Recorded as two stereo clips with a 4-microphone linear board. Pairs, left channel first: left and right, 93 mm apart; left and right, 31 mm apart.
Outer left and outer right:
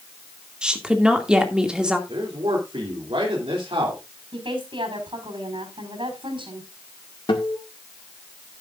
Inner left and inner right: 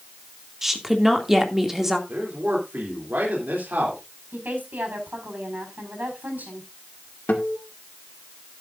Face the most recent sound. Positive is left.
turn(degrees=65)  # may be behind; listen again after turning